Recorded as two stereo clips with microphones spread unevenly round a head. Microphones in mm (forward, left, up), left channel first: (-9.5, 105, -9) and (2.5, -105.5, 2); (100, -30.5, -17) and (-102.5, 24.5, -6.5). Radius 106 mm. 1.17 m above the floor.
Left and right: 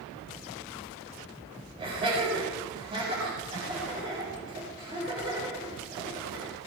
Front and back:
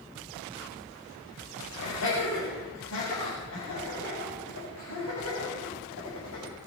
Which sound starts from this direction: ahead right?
Laughter, at 1.8 s.